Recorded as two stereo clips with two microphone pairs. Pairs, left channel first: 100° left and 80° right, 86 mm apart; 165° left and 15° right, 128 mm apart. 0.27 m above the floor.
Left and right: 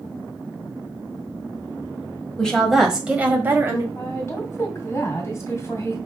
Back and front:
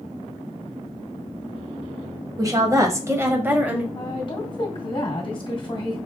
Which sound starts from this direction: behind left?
A woman speaking, at 4.0 s.